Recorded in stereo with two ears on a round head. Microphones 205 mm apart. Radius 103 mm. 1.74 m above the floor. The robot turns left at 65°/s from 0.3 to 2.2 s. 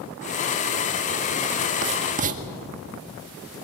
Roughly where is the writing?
Right.